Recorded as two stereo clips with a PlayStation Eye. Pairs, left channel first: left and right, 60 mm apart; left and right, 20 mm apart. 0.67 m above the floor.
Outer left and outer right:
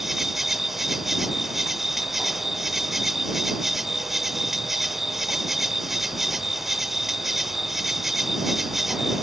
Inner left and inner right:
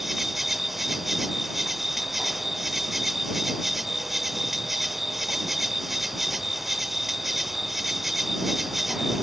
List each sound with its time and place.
0.0 s an insect: 5° right (ahead or behind)